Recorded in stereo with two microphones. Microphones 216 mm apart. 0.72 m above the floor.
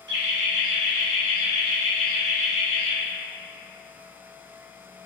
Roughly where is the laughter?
Right.